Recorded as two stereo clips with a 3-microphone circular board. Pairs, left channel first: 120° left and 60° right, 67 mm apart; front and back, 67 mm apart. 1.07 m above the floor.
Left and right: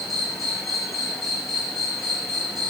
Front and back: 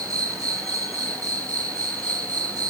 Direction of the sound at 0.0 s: 150° right.